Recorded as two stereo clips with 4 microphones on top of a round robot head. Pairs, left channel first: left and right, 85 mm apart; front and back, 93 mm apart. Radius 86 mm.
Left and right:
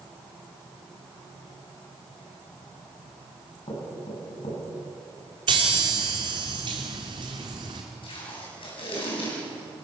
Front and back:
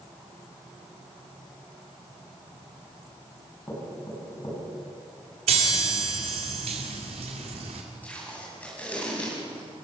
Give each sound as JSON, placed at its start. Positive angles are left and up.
{"t": 3.7, "sound": "knocking", "azimuth_deg": 60, "distance_m": 7.5}
{"t": 5.5, "sound": "a chime", "azimuth_deg": -140, "distance_m": 2.0}
{"t": 8.0, "sound": "tape being pulled", "azimuth_deg": 75, "distance_m": 8.0}